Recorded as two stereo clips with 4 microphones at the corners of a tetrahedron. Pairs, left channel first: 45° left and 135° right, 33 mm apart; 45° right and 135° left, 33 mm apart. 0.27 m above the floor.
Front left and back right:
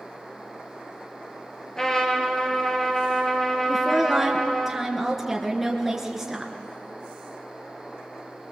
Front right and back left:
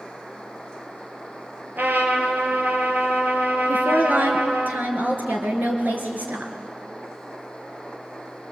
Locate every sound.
1.8 s a trumpet: 115° left, 3 m
3.7 s a woman speaking: 140° left, 3.5 m